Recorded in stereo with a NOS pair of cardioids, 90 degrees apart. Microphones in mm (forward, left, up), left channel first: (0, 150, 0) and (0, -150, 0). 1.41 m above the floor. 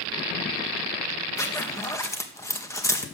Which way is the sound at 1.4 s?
10° left.